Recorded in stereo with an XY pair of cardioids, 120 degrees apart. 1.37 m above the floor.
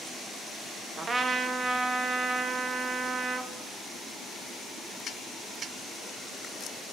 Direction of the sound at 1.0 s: 30° right.